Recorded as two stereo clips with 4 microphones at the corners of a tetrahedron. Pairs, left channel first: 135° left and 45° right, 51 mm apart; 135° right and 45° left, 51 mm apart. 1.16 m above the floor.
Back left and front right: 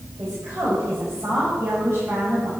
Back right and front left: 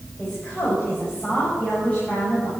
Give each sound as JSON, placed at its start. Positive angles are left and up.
{"t": 0.2, "sound": "a woman speaking", "azimuth_deg": -70, "distance_m": 5.5}